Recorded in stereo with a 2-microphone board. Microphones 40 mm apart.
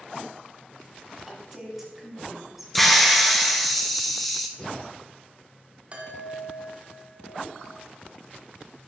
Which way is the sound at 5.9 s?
35° right (ahead or behind).